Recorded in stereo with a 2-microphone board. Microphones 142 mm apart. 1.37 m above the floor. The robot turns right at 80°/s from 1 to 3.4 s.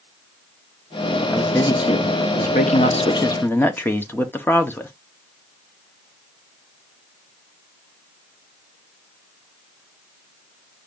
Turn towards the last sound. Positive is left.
turn(degrees=165)